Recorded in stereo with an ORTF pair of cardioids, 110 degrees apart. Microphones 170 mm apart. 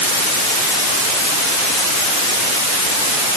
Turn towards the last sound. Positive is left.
No sound to turn to.